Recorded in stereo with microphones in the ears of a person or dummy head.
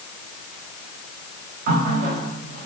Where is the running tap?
40° right (ahead or behind), 1.0 m.